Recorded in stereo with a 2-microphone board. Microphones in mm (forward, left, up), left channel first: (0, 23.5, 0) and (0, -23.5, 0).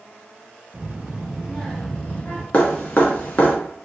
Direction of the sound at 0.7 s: 25° right (ahead or behind).